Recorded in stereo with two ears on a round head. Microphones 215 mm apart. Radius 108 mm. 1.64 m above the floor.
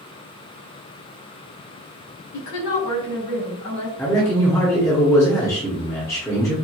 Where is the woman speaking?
85° left, 2.0 m; by 3.9 s 75° left (ahead or behind), 2.5 m.